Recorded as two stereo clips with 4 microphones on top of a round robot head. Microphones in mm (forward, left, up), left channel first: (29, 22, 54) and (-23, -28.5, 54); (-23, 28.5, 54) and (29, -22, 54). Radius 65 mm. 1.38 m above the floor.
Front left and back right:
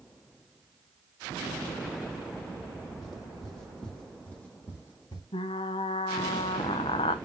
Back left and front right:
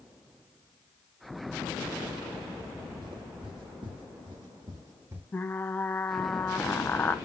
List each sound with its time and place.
3.0 s footsteps: 45° right, 3.5 m; by 5.2 s 10° left, 1.8 m
5.3 s frying: 65° left, 0.6 m